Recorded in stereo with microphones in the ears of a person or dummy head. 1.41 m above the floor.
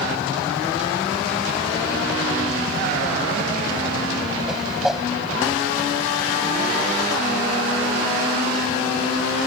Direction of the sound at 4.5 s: 5° right (ahead or behind).